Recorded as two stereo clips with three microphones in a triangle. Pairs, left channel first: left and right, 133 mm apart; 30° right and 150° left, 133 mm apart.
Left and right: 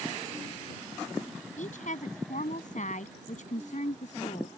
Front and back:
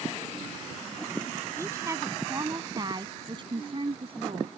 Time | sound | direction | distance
1.6 | a woman speaking | 80° left | ?